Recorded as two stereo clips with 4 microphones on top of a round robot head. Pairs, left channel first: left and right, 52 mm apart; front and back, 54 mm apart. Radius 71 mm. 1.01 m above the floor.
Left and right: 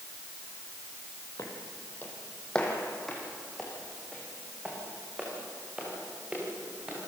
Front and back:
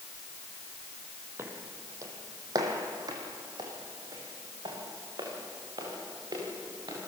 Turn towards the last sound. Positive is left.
turn(degrees=-160)